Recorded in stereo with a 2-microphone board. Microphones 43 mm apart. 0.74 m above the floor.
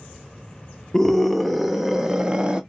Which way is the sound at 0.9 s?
10° left (ahead or behind).